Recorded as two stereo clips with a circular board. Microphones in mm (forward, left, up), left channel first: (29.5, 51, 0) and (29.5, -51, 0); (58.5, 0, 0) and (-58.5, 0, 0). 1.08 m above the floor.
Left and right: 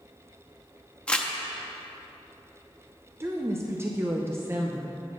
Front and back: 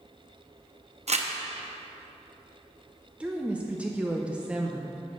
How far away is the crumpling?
About 0.7 m.